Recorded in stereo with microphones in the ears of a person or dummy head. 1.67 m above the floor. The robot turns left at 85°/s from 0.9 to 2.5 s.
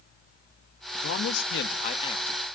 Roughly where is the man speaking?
Behind left.